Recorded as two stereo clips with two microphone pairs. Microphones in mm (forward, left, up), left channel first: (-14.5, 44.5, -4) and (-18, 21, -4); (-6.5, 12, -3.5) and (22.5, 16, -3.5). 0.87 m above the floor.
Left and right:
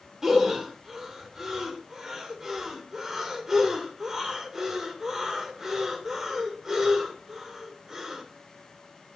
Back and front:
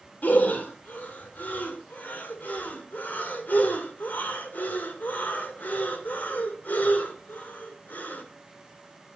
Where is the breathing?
165° right, 2.5 m.